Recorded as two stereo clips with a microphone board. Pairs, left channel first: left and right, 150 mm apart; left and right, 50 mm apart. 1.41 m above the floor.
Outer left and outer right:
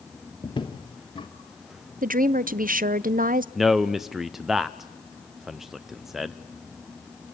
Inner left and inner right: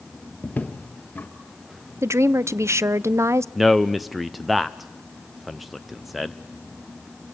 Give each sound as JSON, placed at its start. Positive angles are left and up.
{"t": 0.4, "sound": "footsteps", "side_deg": 35, "distance_m": 1.6}
{"t": 2.0, "sound": "a woman speaking", "side_deg": -70, "distance_m": 0.5}
{"t": 3.5, "sound": "a man speaking", "side_deg": 0, "distance_m": 0.6}